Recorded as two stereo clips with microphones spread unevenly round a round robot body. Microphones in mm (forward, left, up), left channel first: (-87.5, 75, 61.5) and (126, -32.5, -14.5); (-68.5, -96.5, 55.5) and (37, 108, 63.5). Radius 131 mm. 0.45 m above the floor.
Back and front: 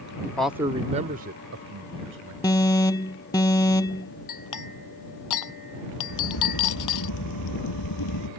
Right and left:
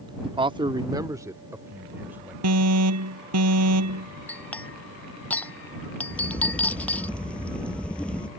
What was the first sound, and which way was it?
A man speaking, 45° left.